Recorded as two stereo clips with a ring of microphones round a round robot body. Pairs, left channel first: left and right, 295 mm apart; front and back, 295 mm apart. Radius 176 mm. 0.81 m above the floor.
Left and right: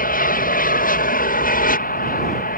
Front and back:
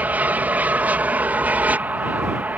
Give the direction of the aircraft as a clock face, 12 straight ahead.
9 o'clock.